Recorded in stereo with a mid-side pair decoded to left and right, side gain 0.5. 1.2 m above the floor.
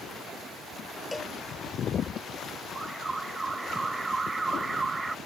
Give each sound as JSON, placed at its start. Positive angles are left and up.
{"t": 1.1, "sound": "a cowbell", "azimuth_deg": 20}
{"t": 2.8, "sound": "an alarm", "azimuth_deg": -15}